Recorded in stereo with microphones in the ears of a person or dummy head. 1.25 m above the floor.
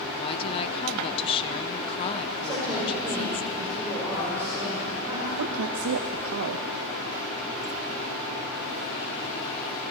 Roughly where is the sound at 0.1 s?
Left.